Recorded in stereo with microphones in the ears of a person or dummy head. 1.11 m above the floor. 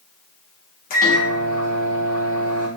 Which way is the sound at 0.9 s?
40° left (ahead or behind).